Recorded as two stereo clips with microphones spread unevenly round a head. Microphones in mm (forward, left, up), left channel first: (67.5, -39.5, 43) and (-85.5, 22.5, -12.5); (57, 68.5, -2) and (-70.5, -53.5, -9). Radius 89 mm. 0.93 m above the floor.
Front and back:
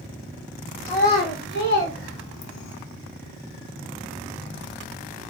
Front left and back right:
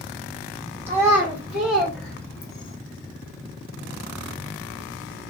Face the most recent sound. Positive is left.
turn(degrees=-10)